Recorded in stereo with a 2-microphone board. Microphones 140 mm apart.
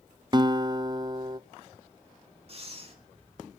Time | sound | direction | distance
0.3 | a guitar | 30° right (ahead or behind) | 0.6 m
2.5 | breathing | 45° right (ahead or behind) | 3 m